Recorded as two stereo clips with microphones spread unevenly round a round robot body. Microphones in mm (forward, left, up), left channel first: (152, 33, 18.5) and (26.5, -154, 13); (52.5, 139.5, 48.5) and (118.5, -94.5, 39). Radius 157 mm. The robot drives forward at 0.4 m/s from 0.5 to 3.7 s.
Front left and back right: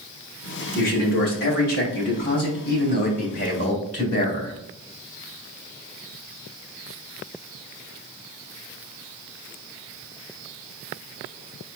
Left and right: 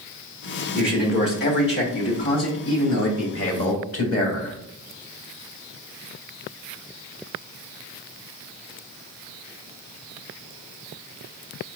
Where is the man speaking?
60° left, 1.7 m; by 4.5 s 110° left, 1.6 m.